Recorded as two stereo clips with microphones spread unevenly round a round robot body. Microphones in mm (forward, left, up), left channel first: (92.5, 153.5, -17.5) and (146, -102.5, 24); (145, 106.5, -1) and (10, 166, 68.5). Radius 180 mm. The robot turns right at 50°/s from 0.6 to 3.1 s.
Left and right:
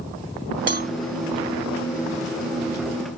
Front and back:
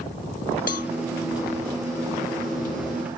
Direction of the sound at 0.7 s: 30° right.